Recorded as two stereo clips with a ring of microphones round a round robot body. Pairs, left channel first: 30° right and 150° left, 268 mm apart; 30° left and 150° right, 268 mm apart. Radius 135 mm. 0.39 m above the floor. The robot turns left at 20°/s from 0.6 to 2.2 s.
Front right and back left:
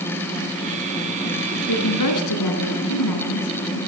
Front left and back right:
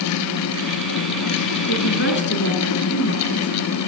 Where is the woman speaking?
10° right, 4.5 m; by 3.8 s 20° right, 4.5 m.